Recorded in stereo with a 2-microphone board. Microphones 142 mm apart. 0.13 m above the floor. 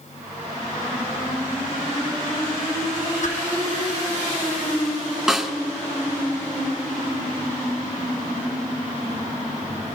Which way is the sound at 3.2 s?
65° left (ahead or behind).